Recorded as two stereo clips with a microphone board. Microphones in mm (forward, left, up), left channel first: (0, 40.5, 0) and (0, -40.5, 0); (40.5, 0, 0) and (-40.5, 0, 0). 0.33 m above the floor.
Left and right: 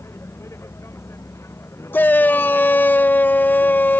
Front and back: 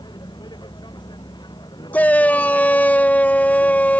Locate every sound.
0.0 s a vehicle: 30° left
1.9 s a shout: 50° left